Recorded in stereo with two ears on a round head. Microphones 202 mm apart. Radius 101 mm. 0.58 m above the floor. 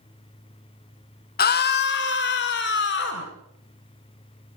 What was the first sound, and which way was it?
A scream, 40° left (ahead or behind).